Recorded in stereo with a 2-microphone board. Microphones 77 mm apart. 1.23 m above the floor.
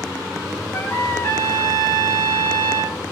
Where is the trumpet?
30° left (ahead or behind), 1.7 m.